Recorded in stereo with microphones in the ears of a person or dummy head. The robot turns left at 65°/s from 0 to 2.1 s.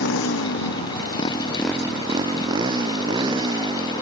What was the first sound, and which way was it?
A motorcycle, 65° left (ahead or behind).